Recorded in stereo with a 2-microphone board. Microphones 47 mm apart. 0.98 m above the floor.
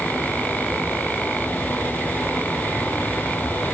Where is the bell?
No bell in this recording.